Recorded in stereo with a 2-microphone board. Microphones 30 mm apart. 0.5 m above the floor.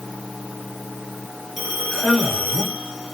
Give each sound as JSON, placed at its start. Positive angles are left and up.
{"t": 1.6, "sound": "a man speaking", "side_deg": -5, "distance_m": 1.8}